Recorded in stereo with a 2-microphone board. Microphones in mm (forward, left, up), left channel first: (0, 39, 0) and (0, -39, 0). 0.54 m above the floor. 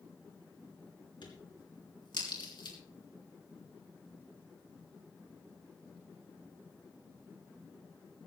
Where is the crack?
75° left (ahead or behind), 3.5 m.